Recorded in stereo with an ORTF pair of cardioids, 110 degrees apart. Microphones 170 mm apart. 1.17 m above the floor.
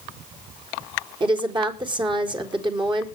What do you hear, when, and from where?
1.2 s a woman speaking: 30° right, 4 m